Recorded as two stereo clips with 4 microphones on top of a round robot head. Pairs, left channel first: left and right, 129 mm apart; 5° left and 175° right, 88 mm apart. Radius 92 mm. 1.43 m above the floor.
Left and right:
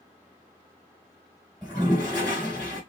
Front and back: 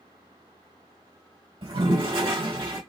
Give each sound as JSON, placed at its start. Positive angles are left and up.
{"t": 1.6, "sound": "a toilet flushing", "azimuth_deg": 170, "distance_m": 3.0}